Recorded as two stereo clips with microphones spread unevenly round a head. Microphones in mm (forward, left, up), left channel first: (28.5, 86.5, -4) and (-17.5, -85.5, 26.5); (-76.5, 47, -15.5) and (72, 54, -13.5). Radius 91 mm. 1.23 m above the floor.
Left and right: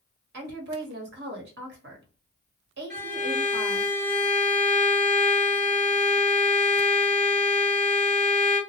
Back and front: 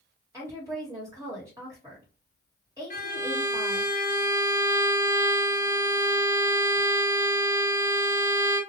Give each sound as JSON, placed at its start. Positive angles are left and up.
{"t": 0.3, "sound": "a woman speaking", "azimuth_deg": -70, "distance_m": 1.1}
{"t": 2.9, "sound": "a violin", "azimuth_deg": -135, "distance_m": 1.2}